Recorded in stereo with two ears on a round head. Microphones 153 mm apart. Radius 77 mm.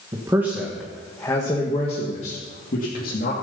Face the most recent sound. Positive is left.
turn(degrees=55)  # may be behind; listen again after turning